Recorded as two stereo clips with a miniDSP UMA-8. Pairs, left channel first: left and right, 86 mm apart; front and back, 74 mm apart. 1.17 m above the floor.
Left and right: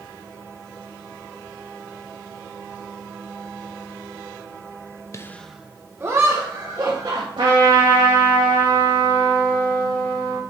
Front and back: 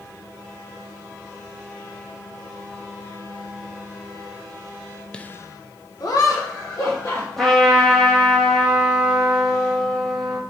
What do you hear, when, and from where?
5.1 s laughter: 65° left, 0.6 m; by 7.3 s 40° right, 2.5 m
7.4 s a trumpet: 85° right, 2.5 m